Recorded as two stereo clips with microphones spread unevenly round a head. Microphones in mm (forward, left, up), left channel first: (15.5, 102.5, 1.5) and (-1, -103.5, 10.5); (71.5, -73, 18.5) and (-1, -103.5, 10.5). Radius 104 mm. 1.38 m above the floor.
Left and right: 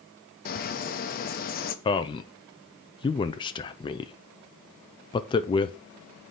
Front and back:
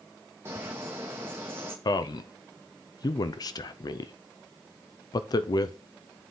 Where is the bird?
135° left, 0.8 m.